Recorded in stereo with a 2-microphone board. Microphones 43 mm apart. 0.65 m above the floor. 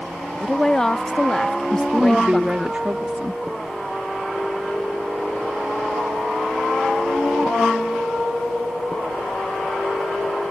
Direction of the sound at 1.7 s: 30° right (ahead or behind).